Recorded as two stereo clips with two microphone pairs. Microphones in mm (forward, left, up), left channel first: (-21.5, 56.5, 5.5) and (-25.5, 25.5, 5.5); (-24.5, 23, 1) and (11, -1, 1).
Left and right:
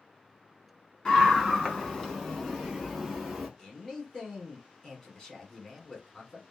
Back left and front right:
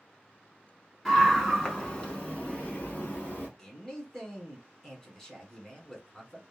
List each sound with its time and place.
1.1 s a scream: 70° left, 1.4 m; by 3.5 s 160° left, 1.9 m
3.6 s a man speaking: 95° left, 1.2 m